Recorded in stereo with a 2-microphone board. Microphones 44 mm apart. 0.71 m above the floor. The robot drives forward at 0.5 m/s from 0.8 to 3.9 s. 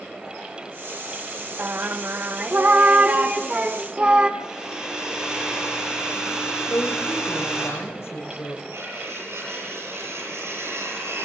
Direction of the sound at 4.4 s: 15° right (ahead or behind).